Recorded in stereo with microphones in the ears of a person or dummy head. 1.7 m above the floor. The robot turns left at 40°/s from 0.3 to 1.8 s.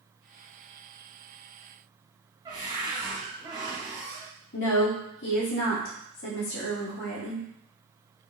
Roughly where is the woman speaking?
Left.